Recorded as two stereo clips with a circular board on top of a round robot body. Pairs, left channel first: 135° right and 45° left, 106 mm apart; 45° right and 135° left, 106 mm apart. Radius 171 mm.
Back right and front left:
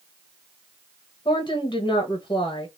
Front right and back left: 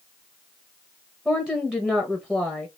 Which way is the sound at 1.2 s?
140° right.